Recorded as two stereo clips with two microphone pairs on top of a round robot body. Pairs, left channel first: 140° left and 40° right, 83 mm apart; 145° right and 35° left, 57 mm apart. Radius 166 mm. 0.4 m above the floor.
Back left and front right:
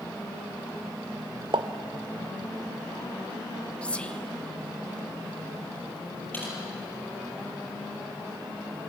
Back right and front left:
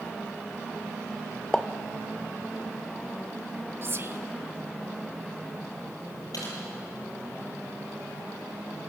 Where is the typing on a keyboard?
155° right, 6.5 m.